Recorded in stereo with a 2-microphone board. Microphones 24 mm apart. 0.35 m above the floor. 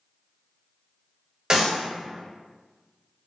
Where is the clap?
30° right (ahead or behind), 1.3 m.